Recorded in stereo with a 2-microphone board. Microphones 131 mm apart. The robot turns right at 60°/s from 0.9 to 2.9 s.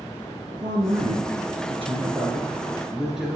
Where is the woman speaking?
125° right, 2.5 m; by 3.4 s 5° right, 2.5 m.